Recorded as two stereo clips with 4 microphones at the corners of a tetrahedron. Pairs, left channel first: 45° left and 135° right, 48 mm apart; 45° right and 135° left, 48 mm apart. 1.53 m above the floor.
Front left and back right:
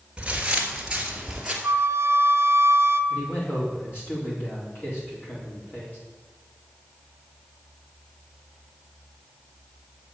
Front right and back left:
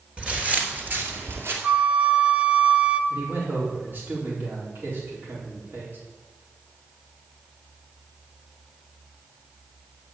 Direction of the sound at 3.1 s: 90° left.